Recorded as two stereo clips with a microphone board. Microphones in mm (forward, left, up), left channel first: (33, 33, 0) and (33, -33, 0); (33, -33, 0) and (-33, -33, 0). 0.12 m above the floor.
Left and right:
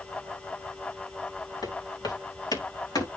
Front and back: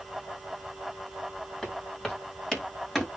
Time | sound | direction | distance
1.6 | footsteps | 80° left | 8.5 m